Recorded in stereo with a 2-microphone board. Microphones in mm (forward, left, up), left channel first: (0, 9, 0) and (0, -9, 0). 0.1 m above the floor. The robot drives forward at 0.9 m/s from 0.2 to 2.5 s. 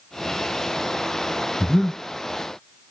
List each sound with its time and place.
1.6 s breathing: 25° left (ahead or behind), 1.0 m; by 2.0 s 30° left (ahead or behind), 1.0 m